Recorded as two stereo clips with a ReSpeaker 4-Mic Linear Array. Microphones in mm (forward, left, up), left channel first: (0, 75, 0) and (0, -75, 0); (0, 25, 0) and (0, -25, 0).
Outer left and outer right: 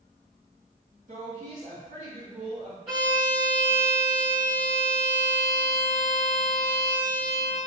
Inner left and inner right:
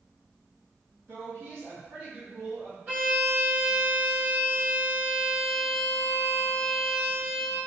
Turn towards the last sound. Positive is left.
turn(degrees=-35)  # may be behind; listen again after turning